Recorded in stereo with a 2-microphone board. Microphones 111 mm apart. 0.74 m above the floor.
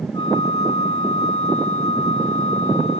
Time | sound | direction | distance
0.1 | a flute | 45° left (ahead or behind) | 1.4 m